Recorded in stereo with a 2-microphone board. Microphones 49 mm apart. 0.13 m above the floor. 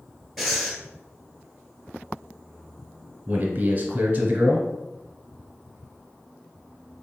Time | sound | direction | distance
0.4 | breathing | centre (ahead or behind) | 1.1 m
3.3 | a man speaking | 30° right (ahead or behind) | 1.5 m